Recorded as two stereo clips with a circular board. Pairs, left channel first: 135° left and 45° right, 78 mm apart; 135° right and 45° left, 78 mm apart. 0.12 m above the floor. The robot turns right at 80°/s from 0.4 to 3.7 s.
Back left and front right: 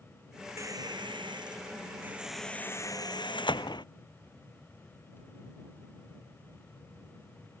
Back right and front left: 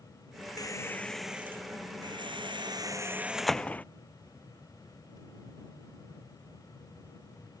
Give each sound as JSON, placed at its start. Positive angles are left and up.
{"t": 0.6, "sound": "a squeak", "azimuth_deg": -95}